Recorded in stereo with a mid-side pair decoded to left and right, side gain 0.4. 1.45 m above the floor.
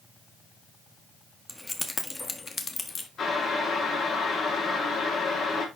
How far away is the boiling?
About 5 m.